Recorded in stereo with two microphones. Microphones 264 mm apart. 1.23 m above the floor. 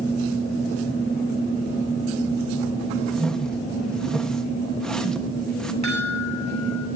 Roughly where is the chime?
Left.